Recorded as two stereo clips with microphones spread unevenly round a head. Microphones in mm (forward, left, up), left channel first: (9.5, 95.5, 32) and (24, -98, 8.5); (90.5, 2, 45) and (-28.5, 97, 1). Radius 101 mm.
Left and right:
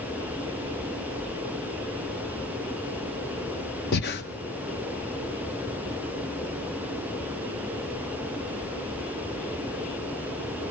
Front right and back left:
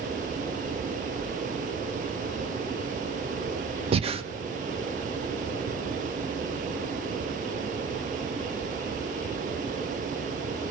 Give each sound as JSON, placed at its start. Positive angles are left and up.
{"t": 3.9, "sound": "breathing", "azimuth_deg": 85, "distance_m": 1.2}